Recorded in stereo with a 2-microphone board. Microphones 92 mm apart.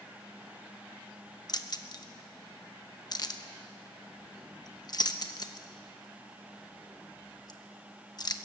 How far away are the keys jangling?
About 1.0 m.